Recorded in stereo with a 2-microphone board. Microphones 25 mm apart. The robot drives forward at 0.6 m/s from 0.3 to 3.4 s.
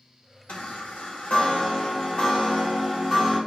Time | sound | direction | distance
0.5 | a chime | 60° left (ahead or behind) | 0.8 m